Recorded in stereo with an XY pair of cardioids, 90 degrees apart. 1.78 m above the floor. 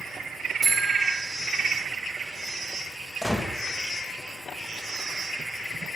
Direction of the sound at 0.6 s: 40° right.